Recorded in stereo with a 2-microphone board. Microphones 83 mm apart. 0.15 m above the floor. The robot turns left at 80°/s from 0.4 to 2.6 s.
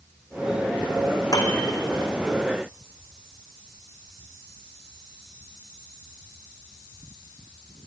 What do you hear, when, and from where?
1.3 s a piano: 50° left (ahead or behind), 3.5 m; by 1.6 s 70° left (ahead or behind), 3.5 m